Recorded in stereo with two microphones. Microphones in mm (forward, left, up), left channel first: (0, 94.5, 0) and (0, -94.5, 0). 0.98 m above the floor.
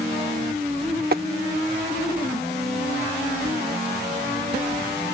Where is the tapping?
55° right (ahead or behind).